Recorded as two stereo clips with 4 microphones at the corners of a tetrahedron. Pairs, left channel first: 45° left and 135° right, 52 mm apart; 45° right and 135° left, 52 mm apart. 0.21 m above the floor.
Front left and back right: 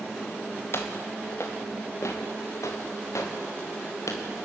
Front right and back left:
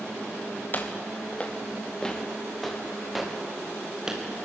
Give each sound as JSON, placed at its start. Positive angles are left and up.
{"t": 0.7, "sound": "footsteps", "azimuth_deg": 10, "distance_m": 3.0}